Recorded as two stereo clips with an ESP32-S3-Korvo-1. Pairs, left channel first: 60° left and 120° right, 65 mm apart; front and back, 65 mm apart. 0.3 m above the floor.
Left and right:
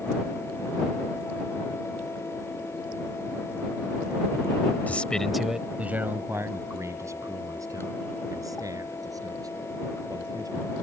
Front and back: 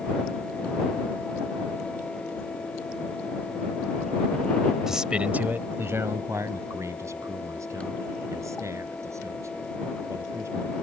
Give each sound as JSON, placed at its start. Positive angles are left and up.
{"t": 4.9, "sound": "a man speaking", "azimuth_deg": 100}